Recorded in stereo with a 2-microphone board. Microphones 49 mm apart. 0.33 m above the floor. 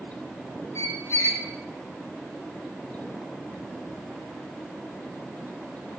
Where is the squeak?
65° left (ahead or behind), 0.5 m.